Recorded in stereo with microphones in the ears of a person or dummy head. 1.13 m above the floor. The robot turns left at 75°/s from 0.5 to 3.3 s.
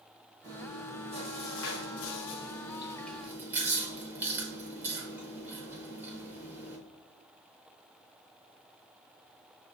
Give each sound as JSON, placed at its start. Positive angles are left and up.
{"t": 0.4, "sound": "chewing", "azimuth_deg": -160, "distance_m": 0.7}